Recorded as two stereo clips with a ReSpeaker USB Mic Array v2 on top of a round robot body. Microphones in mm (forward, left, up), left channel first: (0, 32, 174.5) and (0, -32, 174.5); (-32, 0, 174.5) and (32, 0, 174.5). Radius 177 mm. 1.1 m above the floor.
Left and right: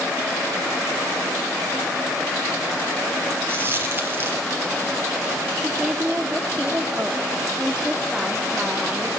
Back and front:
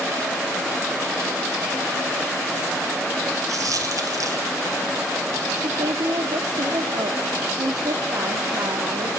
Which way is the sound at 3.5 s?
30° right.